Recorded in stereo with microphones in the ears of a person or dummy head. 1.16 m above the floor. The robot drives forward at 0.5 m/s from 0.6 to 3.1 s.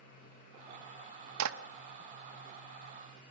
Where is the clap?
80° right, 1.0 m; by 1.6 s 85° right, 1.0 m.